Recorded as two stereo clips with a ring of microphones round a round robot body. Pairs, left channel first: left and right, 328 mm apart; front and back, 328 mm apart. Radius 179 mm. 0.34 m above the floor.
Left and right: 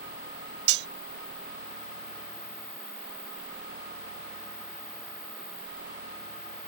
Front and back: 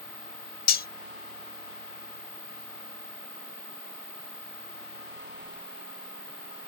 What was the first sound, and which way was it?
Cutlery clinking, 60° right.